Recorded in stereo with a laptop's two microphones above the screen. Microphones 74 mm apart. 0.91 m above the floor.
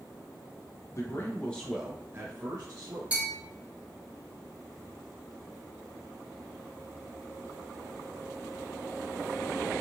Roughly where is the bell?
Centre.